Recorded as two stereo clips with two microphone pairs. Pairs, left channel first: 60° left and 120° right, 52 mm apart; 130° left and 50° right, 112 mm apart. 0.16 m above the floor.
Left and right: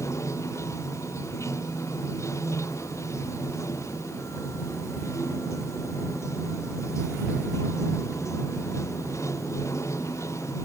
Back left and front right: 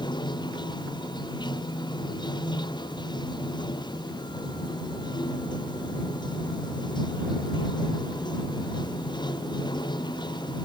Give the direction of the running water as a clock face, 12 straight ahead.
9 o'clock.